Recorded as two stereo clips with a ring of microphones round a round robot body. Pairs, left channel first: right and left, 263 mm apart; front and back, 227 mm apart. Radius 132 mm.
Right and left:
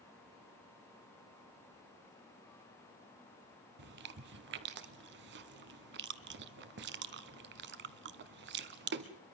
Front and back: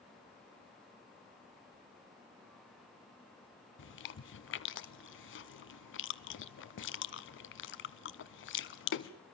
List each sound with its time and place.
3.8 s chewing: 40° left, 0.7 m